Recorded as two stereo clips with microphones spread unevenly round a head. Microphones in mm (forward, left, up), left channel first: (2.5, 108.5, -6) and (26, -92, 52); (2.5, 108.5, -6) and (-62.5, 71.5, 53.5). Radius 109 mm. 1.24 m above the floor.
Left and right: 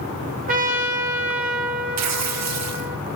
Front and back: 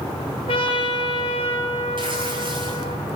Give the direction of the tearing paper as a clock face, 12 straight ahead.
3 o'clock.